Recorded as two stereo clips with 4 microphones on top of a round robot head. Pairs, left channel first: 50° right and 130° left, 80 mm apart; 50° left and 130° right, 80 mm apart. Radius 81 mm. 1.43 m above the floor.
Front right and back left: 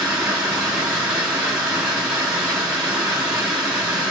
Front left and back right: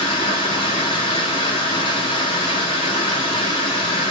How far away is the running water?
About 1.2 m.